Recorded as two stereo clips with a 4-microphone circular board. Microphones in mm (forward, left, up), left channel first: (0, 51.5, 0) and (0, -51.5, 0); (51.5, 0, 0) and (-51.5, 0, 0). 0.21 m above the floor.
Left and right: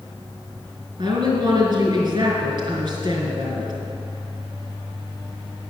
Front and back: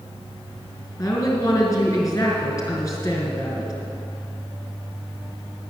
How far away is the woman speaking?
About 2.5 m.